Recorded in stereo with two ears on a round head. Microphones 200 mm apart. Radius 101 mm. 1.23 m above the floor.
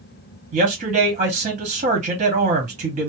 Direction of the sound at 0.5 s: 30° right (ahead or behind).